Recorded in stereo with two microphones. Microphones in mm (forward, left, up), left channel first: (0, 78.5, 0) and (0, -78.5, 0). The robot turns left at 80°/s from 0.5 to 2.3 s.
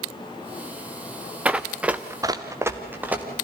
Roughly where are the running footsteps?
Centre.